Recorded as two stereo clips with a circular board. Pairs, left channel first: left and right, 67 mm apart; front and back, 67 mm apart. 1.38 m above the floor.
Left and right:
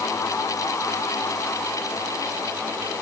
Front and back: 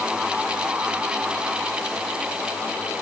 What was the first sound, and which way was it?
Only background noise.